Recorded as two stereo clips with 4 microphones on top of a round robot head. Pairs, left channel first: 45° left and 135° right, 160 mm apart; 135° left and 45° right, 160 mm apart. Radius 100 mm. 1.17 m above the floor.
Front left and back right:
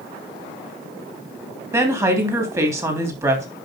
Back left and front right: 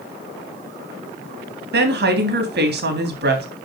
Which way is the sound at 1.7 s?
60° right.